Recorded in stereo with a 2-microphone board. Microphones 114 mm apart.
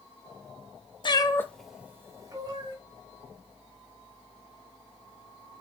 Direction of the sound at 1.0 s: 45° left (ahead or behind).